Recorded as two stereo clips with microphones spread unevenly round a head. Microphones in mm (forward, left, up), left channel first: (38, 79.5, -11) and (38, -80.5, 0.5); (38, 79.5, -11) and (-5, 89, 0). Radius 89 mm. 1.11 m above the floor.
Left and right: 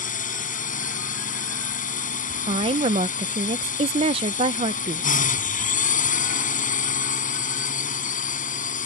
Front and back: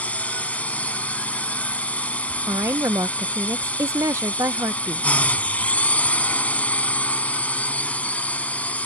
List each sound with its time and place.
0.0 s a drone: 50° left
2.5 s a woman speaking: 150° right